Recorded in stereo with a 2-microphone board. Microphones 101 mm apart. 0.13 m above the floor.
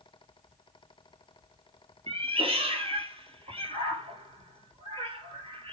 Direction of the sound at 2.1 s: 70° right (ahead or behind).